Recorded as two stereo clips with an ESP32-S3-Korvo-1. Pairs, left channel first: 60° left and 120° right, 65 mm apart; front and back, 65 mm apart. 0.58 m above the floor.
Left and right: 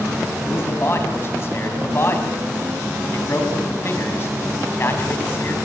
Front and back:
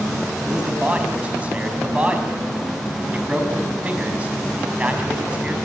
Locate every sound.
0.5 s a man speaking: 110° left, 4.5 m